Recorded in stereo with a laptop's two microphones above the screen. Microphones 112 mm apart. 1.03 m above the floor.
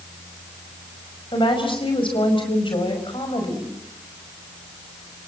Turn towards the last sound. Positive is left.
turn(degrees=50)  # may be behind; listen again after turning